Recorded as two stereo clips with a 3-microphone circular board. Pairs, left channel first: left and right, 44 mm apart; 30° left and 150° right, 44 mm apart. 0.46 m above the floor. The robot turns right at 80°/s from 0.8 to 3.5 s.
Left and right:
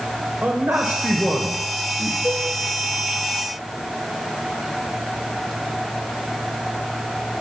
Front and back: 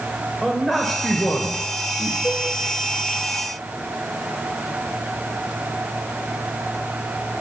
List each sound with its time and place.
0.4 s a man speaking: 55° right, 1.9 m; by 2.1 s 55° left, 1.9 m
2.2 s a cowbell: 75° left, 4 m; by 2.5 s 90° left, 4 m